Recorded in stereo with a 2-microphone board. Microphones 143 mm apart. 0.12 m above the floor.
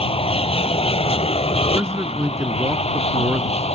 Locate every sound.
0.0 s an aircraft: 40° left (ahead or behind); by 3.8 s 45° left (ahead or behind)
1.8 s a man speaking: 20° right (ahead or behind)